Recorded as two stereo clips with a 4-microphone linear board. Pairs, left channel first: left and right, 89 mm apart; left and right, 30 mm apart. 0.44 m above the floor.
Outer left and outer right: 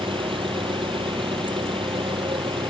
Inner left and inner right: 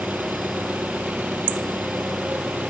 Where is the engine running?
80° right.